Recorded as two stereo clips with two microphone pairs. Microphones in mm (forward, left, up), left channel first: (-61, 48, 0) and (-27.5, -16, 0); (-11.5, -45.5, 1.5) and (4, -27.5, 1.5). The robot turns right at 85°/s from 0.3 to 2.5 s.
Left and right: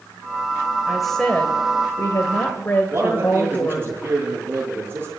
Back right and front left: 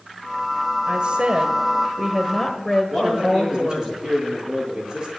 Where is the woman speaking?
15° left, 1.6 m; by 3.9 s 150° left, 1.6 m.